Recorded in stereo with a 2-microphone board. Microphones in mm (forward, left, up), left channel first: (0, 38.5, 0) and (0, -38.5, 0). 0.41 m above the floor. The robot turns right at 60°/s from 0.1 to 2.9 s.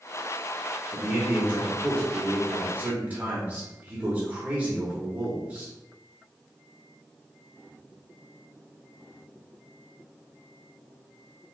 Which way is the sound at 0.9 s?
5° right (ahead or behind).